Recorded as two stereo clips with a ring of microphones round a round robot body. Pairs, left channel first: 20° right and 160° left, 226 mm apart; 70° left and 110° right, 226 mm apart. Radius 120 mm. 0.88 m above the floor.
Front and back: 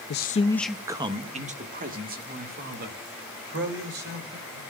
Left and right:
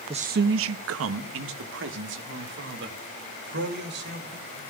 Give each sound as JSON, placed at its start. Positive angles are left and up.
{"t": 0.1, "sound": "a man speaking", "azimuth_deg": -50, "distance_m": 0.6}